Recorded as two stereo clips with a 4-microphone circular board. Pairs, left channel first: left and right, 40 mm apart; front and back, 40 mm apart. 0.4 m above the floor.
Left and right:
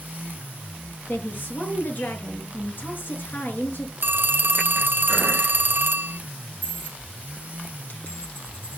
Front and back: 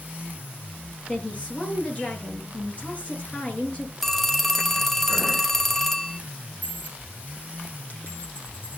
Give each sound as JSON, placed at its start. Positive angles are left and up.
{"t": 1.1, "sound": "a woman speaking", "azimuth_deg": 55, "distance_m": 6.5}
{"t": 4.0, "sound": "a phone ringing", "azimuth_deg": -85, "distance_m": 0.9}
{"t": 6.6, "sound": "a dropped coin", "azimuth_deg": 45, "distance_m": 6.5}